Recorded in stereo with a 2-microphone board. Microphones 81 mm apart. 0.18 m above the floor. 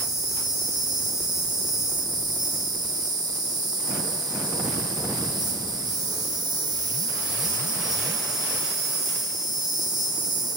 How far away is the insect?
About 1.5 m.